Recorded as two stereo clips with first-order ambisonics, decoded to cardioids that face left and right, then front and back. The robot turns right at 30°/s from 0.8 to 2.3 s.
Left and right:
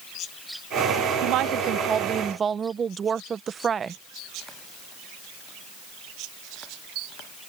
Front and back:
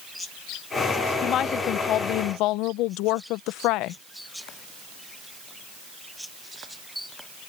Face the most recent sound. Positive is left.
turn(degrees=-25)